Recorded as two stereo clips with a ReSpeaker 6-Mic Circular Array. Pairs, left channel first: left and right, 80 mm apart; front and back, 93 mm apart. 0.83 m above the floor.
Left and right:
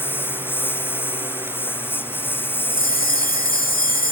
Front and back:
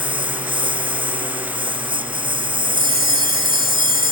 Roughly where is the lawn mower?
Behind left.